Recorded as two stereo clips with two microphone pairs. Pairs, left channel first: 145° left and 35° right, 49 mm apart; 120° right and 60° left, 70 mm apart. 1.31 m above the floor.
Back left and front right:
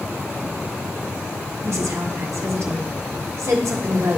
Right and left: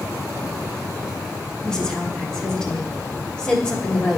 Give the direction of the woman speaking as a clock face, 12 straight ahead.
1 o'clock.